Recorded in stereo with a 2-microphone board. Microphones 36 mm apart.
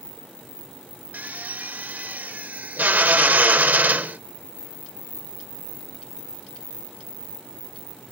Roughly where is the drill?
Right.